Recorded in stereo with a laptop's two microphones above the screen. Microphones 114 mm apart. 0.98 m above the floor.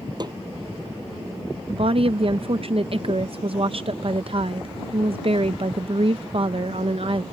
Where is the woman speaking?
55° right (ahead or behind).